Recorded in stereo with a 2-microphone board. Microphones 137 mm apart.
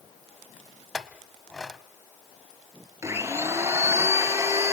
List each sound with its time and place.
0.9 s a clink: centre (ahead or behind), 1.0 m
3.0 s a blender: 20° right (ahead or behind), 2 m